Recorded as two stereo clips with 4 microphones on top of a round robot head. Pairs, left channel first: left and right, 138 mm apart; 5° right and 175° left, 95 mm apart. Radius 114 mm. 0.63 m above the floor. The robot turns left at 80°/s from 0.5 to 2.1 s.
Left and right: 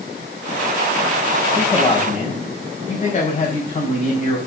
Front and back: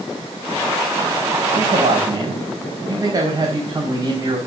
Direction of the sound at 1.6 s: 170° left.